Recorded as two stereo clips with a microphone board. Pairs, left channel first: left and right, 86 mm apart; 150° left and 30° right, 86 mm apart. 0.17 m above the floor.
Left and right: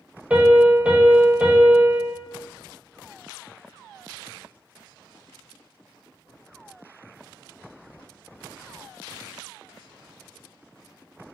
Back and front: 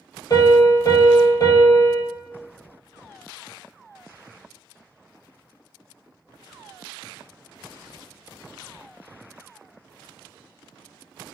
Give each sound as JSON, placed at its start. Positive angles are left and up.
{"t": 0.3, "sound": "a piano", "azimuth_deg": -165, "distance_m": 0.8}